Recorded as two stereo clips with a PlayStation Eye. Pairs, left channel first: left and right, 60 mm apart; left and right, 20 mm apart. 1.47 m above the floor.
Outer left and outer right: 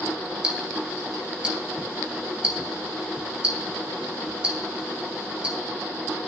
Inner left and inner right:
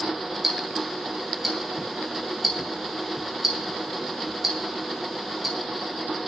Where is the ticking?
20° right (ahead or behind), 2.5 m.